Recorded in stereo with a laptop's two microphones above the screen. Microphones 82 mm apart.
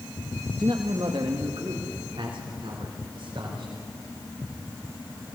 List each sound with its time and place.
0.6 s a man speaking: 60° right (ahead or behind), 1.2 m; by 3.7 s 85° right, 4.5 m